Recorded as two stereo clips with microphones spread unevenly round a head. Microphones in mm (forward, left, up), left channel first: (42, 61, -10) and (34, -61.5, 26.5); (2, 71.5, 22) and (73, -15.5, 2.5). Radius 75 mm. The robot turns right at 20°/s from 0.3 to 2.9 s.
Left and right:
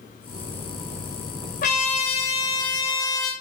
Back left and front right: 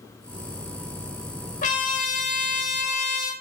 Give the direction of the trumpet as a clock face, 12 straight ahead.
8 o'clock.